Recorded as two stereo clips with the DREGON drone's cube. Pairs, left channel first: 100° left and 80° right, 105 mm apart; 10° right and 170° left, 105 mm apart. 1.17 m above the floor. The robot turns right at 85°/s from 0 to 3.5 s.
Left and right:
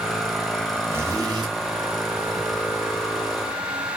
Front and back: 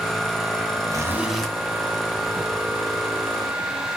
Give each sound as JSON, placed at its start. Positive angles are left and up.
{"t": 0.9, "sound": "a zipper", "azimuth_deg": -145, "distance_m": 0.8}